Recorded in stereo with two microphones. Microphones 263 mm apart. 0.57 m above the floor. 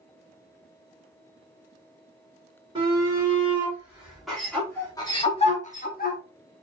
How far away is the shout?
About 1.8 m.